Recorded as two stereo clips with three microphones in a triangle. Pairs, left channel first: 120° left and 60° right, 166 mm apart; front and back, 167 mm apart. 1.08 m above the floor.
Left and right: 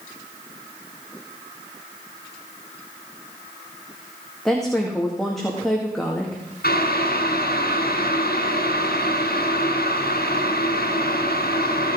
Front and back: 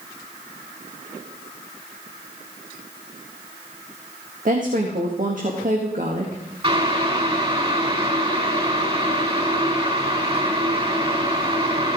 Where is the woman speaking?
150° right, 2 m.